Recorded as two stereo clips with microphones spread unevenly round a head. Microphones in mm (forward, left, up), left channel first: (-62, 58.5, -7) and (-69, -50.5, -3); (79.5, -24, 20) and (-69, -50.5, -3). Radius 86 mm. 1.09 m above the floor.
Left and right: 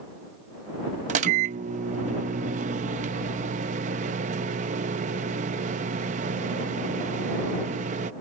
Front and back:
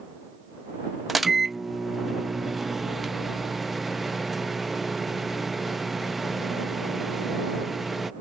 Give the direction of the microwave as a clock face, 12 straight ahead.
3 o'clock.